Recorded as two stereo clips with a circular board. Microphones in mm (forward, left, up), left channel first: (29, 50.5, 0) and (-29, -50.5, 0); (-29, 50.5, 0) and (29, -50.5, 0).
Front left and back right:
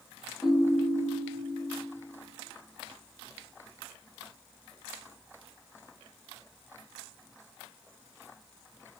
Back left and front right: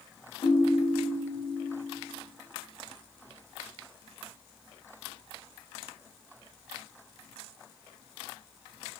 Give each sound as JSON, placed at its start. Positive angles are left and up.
{"t": 0.4, "sound": "a ringtone", "azimuth_deg": 155, "distance_m": 0.9}